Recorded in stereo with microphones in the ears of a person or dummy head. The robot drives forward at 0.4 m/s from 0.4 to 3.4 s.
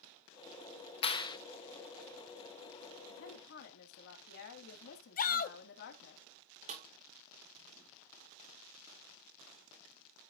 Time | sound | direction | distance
1.0 | a clap | 25° left (ahead or behind) | 0.6 m
3.1 | a woman speaking | 65° left (ahead or behind) | 1.7 m
5.2 | a shout | 40° left (ahead or behind) | 0.7 m
6.7 | a snare drum | 40° right (ahead or behind) | 1.8 m